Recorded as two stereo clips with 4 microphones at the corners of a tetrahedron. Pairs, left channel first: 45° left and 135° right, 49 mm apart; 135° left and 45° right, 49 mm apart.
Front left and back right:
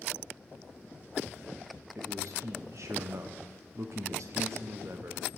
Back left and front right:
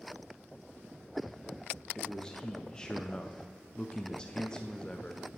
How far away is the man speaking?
About 0.6 m.